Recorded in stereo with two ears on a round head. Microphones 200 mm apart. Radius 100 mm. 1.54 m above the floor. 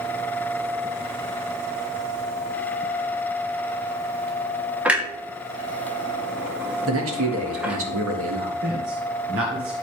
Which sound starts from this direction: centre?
A clunk, at 4.8 s.